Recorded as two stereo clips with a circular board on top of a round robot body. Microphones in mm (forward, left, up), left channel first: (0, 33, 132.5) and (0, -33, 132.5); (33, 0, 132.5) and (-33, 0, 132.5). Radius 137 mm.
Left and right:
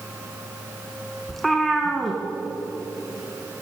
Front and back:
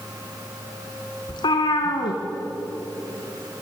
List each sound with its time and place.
1.3 s a cat meowing: straight ahead, 1.6 m